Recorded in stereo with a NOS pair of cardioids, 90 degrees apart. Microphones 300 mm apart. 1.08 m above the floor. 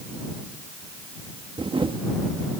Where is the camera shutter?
15° right.